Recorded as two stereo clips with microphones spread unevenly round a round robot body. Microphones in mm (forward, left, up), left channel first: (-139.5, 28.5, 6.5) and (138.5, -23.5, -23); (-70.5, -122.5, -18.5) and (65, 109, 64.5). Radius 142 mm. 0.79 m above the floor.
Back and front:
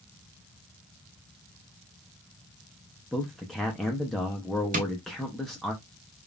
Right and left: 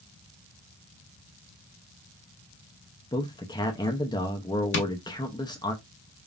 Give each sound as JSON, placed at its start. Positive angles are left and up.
{"t": 3.1, "sound": "a man speaking", "azimuth_deg": -95, "distance_m": 0.7}
{"t": 4.7, "sound": "tapping", "azimuth_deg": -75, "distance_m": 0.9}